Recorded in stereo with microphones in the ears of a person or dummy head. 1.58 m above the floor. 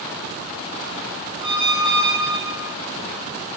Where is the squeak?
25° right (ahead or behind), 1.3 m.